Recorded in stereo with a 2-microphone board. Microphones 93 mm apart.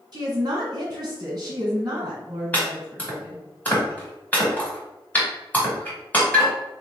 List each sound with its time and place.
0.1 s a woman speaking: 45° right (ahead or behind), 1.6 m
2.5 s chopping: 15° left (ahead or behind), 1.6 m